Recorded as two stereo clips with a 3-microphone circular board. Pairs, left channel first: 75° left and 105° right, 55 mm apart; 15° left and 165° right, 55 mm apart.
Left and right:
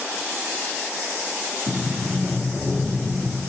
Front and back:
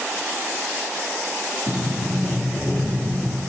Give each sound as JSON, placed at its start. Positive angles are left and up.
{"t": 1.7, "sound": "a sliding door", "azimuth_deg": -45, "distance_m": 1.7}